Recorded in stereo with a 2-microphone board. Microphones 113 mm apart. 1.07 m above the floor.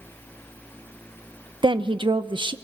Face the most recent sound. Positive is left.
turn(degrees=-45)  # may be behind; listen again after turning